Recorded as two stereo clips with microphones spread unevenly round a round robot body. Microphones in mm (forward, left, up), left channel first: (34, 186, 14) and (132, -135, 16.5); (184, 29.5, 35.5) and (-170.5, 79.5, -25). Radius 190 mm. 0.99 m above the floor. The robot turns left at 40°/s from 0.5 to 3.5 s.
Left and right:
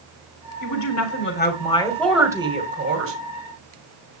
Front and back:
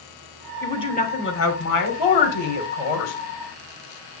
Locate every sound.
0.6 s a woman speaking: 75° left, 3 m; by 3.1 s 25° right, 3 m